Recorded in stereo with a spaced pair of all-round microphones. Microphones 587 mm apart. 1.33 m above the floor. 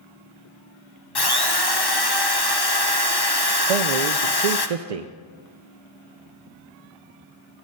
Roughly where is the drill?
Left.